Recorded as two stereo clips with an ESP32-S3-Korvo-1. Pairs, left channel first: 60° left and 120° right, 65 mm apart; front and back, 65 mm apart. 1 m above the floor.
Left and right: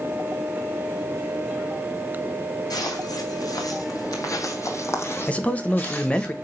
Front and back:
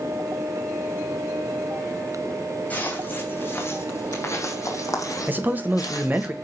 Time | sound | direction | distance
2.7 | footsteps | 65° left | 3 m
5.3 | a man speaking | 125° left | 1.2 m